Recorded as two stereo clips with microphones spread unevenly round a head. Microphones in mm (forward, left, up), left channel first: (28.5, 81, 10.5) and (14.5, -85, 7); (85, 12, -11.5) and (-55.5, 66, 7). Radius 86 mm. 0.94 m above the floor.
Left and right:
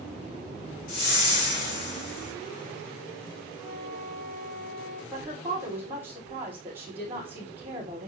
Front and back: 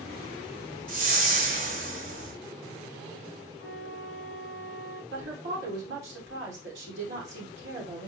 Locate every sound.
0.9 s a whoosh: 130° left, 3 m
3.6 s a flute: straight behind, 4 m
5.1 s a woman speaking: 175° right, 3 m